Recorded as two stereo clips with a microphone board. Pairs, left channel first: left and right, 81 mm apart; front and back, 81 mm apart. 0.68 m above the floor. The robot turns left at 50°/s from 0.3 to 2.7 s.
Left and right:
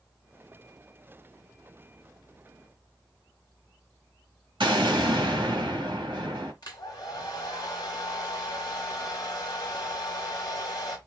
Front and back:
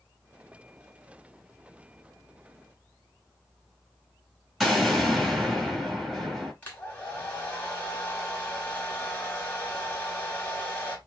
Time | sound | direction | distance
4.6 | an explosion | 90° right | 1.8 m
6.6 | a hair dryer | 60° left | 1.6 m